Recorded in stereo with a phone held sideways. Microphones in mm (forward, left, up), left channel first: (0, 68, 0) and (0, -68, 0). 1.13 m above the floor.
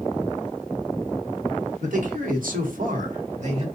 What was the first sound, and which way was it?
A man speaking, 60° right (ahead or behind).